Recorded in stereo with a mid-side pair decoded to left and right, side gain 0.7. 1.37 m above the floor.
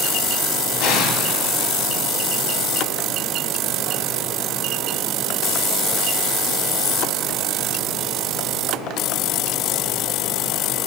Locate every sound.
0.8 s an explosion: 55° left, 3.5 m